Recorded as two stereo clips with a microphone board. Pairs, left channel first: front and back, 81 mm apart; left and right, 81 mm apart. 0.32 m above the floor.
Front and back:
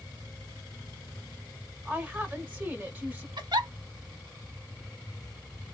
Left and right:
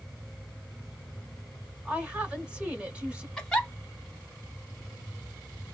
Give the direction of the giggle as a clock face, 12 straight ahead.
6 o'clock.